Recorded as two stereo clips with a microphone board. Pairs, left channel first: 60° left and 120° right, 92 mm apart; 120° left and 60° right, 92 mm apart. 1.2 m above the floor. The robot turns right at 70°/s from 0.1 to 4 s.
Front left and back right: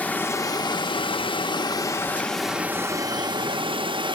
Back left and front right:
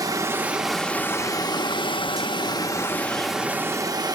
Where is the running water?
15° right, 0.9 m; by 4.2 s 100° right, 0.9 m.